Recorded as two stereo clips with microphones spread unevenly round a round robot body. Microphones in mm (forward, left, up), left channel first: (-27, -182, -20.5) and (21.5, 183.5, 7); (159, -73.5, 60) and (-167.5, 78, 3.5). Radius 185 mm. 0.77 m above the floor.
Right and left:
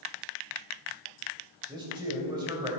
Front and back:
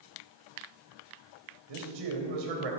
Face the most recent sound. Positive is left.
turn(degrees=160)